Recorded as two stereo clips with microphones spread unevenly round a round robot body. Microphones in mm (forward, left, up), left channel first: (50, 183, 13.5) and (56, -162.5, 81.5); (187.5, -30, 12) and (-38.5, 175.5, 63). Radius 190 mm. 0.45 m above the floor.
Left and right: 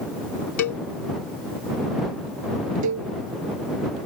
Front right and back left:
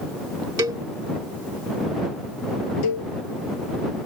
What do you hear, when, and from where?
0.6 s a cowbell: 60° left
2.8 s a cowbell: 50° right